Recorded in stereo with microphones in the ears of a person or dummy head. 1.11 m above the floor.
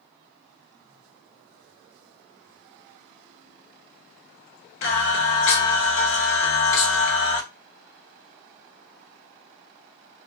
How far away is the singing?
About 0.8 m.